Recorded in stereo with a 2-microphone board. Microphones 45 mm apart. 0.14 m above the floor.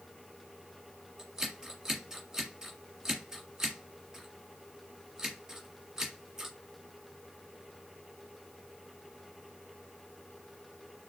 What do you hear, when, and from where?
1.2 s scissors: 15° right (ahead or behind), 1.7 m